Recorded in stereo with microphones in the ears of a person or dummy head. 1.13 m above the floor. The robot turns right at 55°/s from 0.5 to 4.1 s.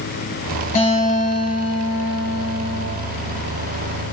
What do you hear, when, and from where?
0.8 s a guitar: 45° left, 9.5 m; by 2.9 s 160° left, 9.5 m